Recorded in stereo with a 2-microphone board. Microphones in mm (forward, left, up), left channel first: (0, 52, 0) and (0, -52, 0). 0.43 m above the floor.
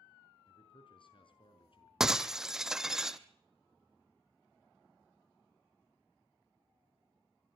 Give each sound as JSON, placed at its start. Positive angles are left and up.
{"t": 0.5, "sound": "a man speaking", "side_deg": 55, "distance_m": 5.0}
{"t": 2.0, "sound": "breaking glass", "side_deg": -5, "distance_m": 0.8}